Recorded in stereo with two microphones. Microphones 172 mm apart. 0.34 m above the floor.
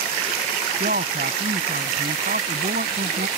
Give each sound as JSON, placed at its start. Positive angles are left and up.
{"t": 0.8, "sound": "a man speaking", "side_deg": -65}